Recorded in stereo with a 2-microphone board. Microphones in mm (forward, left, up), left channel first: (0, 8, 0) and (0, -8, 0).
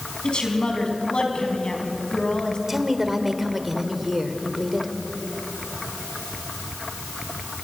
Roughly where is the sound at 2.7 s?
Centre.